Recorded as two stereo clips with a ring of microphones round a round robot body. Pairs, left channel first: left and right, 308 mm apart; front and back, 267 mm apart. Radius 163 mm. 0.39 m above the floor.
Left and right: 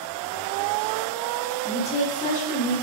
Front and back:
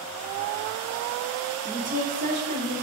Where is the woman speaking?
145° left, 0.9 m.